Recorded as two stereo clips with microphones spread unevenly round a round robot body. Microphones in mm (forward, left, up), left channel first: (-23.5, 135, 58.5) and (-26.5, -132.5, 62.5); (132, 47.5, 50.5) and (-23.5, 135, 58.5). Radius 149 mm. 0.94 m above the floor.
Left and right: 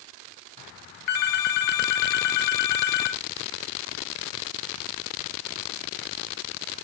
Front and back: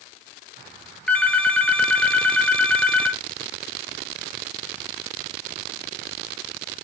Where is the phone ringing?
55° left, 0.7 m.